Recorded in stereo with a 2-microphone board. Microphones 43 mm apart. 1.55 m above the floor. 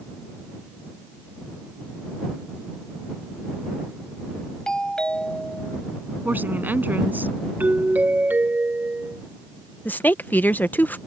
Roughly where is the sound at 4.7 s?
Centre.